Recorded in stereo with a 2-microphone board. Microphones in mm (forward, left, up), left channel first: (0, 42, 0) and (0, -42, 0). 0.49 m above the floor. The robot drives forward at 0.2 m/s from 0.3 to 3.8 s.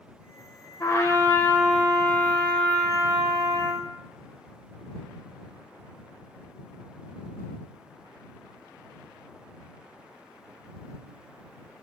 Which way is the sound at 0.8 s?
40° left (ahead or behind).